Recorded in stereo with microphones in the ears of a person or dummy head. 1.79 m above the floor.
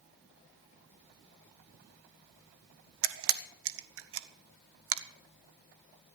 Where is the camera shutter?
75° right (ahead or behind), 1.0 m.